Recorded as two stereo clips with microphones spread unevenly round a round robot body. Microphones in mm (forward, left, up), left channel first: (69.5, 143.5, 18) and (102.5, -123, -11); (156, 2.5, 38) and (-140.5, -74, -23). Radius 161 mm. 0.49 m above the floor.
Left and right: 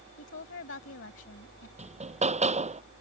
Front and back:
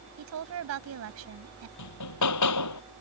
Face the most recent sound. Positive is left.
turn(degrees=-15)